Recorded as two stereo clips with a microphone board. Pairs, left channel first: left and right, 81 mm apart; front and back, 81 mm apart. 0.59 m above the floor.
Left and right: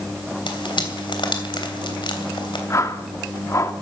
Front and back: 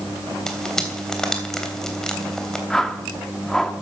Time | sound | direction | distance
0.5 | frying | 85° left | 3 m
2.7 | a whoosh | 80° left | 1.4 m